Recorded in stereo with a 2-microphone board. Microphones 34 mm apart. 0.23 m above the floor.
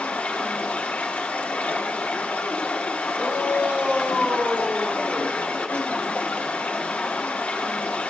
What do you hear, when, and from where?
0.0 s running water: 40° left (ahead or behind), 2.5 m
3.1 s a shout: 40° right (ahead or behind), 4 m